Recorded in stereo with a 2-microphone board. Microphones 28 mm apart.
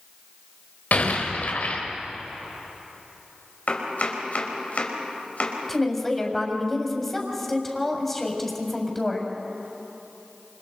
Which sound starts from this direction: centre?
A woman speaking, at 5.7 s.